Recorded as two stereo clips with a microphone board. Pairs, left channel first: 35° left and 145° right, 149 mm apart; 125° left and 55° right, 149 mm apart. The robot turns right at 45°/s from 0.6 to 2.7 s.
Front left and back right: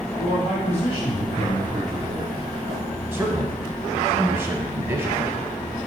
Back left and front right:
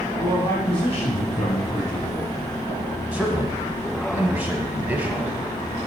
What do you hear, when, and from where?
0.2 s a man speaking: 65° left, 2.5 m; by 2.3 s 140° left, 2.5 m
3.1 s a man speaking: 110° right, 1.0 m